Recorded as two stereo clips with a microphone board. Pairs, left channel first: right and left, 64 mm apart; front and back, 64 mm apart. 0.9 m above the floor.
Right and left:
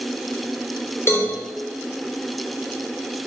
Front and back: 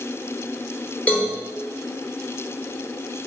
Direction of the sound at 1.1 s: 60° right.